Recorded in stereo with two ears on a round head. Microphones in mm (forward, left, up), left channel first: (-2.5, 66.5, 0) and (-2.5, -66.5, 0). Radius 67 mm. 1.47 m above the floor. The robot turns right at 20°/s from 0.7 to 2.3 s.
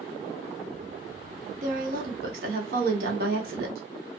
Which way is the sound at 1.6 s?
55° right (ahead or behind).